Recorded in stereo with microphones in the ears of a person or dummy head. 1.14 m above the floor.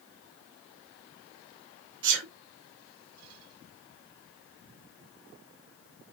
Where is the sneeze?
65° right (ahead or behind), 1.3 m.